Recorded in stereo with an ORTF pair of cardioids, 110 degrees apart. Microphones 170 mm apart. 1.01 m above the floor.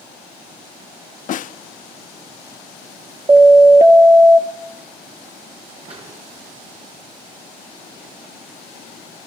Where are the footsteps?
35° right, 9 m.